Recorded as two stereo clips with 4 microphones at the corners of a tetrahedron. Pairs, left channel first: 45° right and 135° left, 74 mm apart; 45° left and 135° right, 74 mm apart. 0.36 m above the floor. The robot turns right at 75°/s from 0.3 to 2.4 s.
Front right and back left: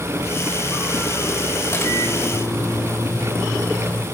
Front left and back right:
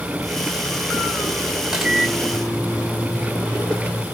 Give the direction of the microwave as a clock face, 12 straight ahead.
2 o'clock.